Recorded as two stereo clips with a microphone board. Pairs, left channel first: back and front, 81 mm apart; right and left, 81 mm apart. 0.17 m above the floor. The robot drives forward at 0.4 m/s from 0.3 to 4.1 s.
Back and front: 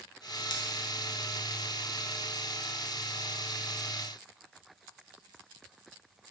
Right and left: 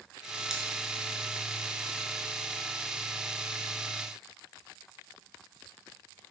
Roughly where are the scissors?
Behind.